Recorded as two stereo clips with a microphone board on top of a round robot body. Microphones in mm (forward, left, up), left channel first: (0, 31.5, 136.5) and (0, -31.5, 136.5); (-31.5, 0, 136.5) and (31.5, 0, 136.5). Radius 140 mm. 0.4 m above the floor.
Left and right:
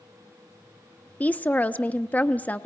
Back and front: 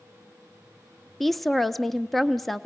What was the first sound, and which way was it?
A woman speaking, 95° left.